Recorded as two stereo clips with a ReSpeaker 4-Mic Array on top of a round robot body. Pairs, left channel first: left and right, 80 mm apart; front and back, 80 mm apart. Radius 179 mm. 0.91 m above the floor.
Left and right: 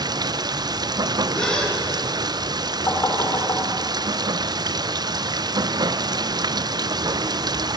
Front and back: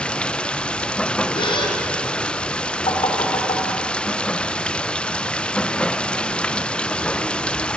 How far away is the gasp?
About 3 m.